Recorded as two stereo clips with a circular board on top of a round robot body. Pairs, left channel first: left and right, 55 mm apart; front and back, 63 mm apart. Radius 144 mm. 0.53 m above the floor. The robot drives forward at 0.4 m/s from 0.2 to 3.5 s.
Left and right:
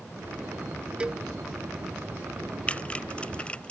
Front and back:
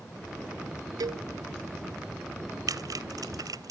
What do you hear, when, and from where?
1.0 s a cowbell: 160° right; by 1.2 s 165° right
2.7 s typing on a keyboard: 160° left